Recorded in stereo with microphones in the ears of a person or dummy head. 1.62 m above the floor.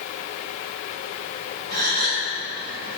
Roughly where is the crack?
I don't hear a crack.